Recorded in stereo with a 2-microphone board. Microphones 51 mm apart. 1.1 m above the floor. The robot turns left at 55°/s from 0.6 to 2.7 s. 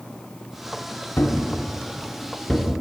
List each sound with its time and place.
1.2 s a thud: 50° left (ahead or behind), 0.9 m; by 2.7 s 5° left (ahead or behind), 0.9 m